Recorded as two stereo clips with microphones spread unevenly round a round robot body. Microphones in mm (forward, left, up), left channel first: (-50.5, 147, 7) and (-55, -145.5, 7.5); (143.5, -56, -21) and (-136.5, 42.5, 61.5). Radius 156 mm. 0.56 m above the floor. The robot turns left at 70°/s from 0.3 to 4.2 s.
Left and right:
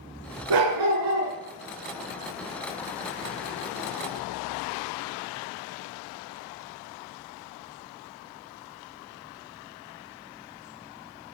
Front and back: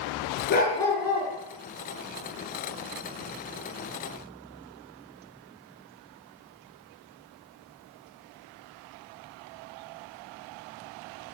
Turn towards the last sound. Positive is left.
turn(degrees=20)